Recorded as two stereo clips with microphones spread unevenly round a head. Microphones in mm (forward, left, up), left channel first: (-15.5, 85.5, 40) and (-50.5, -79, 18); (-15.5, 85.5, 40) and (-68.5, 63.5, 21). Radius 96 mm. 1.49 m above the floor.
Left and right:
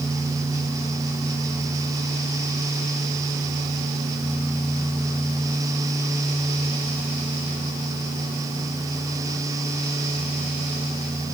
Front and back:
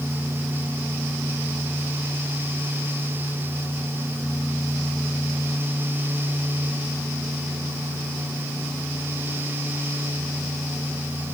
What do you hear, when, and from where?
Only background noise.